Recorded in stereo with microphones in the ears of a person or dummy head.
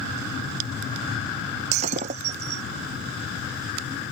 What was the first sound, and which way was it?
Breaking glass, 45° right (ahead or behind).